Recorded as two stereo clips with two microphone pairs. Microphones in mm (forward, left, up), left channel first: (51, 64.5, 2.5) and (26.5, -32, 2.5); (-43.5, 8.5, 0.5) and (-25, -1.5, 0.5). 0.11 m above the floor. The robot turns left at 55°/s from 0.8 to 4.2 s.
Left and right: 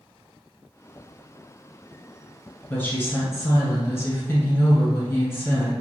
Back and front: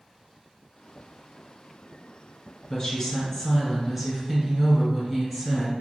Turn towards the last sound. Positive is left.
turn(degrees=40)